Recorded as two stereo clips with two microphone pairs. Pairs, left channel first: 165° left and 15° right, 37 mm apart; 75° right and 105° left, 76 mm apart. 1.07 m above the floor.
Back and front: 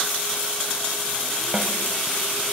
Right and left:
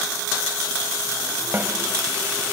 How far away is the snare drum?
About 2.5 m.